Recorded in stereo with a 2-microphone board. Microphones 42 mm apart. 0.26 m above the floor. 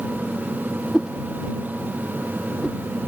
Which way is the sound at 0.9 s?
15° right (ahead or behind).